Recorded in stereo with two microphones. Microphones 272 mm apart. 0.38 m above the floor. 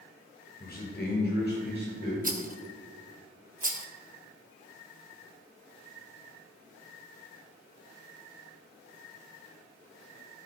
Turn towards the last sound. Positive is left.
turn(degrees=-30)  # may be behind; listen again after turning